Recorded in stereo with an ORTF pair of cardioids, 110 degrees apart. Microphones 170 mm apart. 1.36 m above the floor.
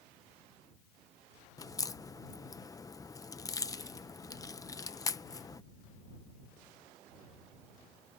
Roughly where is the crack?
Ahead.